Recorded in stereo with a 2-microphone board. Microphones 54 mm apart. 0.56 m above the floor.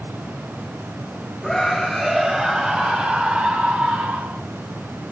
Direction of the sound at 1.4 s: 5° left (ahead or behind).